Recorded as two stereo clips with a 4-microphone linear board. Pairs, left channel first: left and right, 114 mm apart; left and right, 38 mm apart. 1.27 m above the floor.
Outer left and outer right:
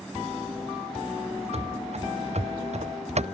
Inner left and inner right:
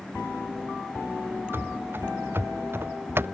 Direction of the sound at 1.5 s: 65° right (ahead or behind).